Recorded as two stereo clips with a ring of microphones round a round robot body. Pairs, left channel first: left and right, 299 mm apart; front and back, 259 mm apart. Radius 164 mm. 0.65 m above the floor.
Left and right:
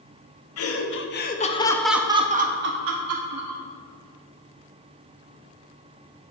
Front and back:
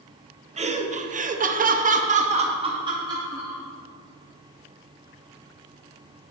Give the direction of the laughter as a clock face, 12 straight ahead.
8 o'clock.